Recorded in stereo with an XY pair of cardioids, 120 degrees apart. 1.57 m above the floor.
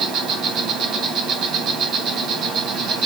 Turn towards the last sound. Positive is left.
turn(degrees=-60)